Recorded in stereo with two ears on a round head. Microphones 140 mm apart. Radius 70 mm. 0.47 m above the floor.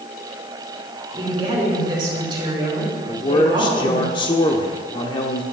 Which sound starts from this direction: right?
A woman speaking, at 1.1 s.